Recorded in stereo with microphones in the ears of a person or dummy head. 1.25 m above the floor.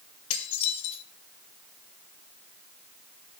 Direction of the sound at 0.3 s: 40° left (ahead or behind).